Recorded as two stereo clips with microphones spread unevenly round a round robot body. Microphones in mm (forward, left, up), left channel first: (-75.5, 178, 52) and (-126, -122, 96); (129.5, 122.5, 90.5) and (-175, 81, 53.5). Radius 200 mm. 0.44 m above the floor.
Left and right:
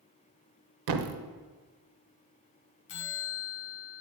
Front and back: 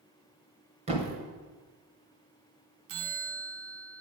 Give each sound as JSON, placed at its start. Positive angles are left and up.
{"t": 0.9, "sound": "a thud", "azimuth_deg": -100, "distance_m": 0.8}
{"t": 2.9, "sound": "a bell", "azimuth_deg": 135, "distance_m": 0.8}